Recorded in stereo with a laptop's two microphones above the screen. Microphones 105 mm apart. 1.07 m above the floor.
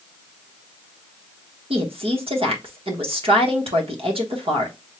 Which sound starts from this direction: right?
A woman speaking, at 1.7 s.